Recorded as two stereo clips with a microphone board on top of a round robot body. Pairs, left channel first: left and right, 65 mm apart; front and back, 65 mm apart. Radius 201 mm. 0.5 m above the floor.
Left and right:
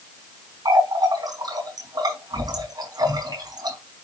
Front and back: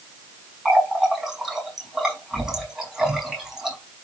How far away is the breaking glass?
I don't hear breaking glass.